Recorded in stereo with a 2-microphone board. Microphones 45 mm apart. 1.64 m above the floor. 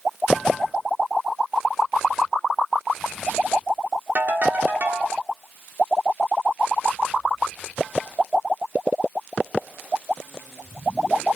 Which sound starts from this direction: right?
A ringtone, at 4.2 s.